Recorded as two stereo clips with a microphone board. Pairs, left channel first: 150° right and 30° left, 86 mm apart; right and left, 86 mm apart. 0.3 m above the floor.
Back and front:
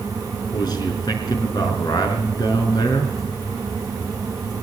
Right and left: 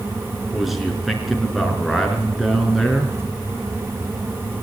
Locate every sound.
0.5 s a man speaking: straight behind, 5 m